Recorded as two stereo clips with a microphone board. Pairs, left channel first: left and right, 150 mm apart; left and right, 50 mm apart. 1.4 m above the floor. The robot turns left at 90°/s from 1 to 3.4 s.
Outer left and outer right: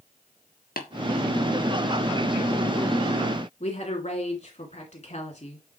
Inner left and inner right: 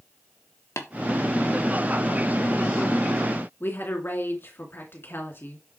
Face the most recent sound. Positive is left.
turn(degrees=50)  # may be behind; listen again after turning